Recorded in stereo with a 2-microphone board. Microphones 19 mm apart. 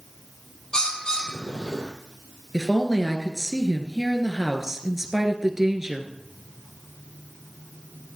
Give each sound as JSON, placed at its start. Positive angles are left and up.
{"t": 0.7, "sound": "a bird", "side_deg": 40, "distance_m": 2.5}
{"t": 2.5, "sound": "a woman speaking", "side_deg": -20, "distance_m": 1.9}